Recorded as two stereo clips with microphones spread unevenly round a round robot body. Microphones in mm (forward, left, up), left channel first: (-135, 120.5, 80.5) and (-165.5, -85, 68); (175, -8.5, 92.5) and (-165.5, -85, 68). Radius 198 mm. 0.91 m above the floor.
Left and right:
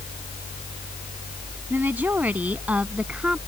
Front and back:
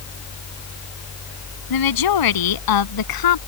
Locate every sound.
1.7 s a woman speaking: 15° right; by 3.4 s 10° right